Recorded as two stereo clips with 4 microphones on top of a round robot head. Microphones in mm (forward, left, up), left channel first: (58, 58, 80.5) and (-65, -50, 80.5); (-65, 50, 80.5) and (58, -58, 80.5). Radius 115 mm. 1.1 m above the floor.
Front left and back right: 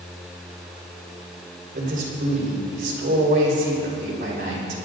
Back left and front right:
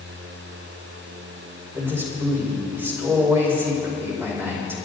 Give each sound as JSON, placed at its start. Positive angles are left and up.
{"t": 1.7, "sound": "a man speaking", "azimuth_deg": -120, "distance_m": 4.5}